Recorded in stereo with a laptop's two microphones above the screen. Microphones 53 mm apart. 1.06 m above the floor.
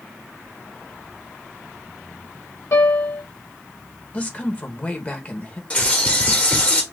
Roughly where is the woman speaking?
Left.